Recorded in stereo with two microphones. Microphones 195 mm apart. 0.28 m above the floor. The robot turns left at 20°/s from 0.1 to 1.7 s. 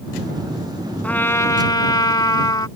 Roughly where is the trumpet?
Centre.